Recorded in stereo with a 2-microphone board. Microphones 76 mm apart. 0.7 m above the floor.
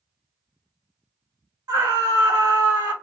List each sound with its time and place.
1.7 s a scream: 65° right (ahead or behind), 2 m